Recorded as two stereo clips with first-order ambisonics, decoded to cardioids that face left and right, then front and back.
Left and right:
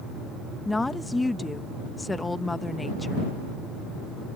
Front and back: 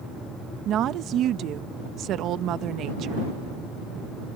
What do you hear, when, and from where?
0.7 s a woman speaking: 165° left